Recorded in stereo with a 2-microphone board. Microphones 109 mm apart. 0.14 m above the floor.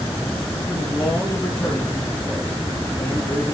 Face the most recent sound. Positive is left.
turn(degrees=15)  # may be behind; listen again after turning